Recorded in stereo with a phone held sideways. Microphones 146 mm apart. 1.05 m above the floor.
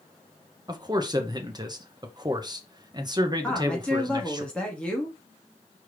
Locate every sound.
0.7 s a man speaking: 30° right (ahead or behind), 0.8 m
3.4 s a woman speaking: 5° left (ahead or behind), 1.5 m